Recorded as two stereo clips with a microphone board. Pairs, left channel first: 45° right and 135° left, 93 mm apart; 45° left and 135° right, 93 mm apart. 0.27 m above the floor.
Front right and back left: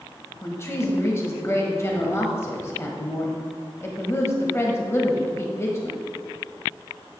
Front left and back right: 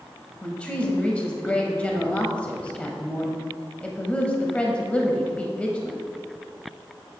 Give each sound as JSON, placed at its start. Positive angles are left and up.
{"t": 0.4, "sound": "a woman speaking", "azimuth_deg": -20, "distance_m": 1.0}